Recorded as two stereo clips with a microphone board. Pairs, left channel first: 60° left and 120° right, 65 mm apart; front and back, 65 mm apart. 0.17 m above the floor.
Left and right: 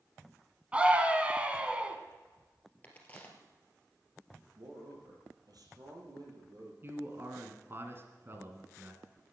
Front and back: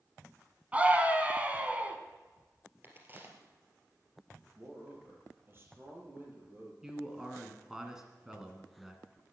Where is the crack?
125° left, 2.5 m.